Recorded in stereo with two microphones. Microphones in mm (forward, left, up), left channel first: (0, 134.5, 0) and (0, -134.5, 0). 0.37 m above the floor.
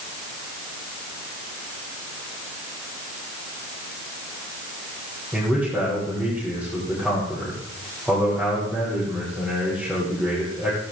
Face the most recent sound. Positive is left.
turn(degrees=0)  # may be behind; listen again after turning